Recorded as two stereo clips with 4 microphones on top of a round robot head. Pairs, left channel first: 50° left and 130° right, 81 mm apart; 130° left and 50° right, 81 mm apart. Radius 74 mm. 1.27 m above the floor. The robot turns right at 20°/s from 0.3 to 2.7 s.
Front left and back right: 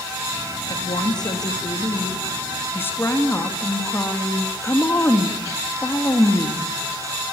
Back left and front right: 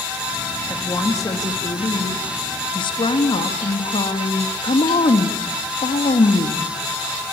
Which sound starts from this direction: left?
A woman speaking, at 0.7 s.